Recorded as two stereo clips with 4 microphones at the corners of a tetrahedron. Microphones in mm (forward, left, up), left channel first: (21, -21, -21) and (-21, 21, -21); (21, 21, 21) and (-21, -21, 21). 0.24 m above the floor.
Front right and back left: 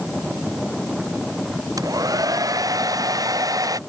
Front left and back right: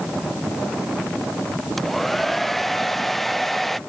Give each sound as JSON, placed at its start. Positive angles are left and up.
{"t": 1.8, "sound": "a hair dryer", "azimuth_deg": 130}